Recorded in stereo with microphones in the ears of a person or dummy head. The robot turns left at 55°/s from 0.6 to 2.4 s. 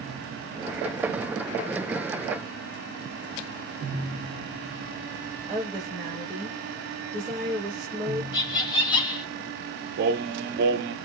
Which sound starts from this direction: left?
Laughter, at 8.3 s.